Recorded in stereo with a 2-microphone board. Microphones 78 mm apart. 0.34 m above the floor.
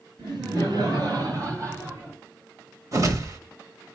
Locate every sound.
0.2 s laughter: 65° right (ahead or behind), 4.5 m; by 2.2 s 25° right (ahead or behind), 3 m
2.9 s a whoosh: 45° right (ahead or behind), 1.1 m